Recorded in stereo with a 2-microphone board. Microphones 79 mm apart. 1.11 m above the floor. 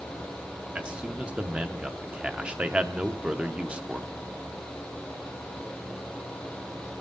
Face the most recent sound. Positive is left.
turn(degrees=-15)  # may be behind; listen again after turning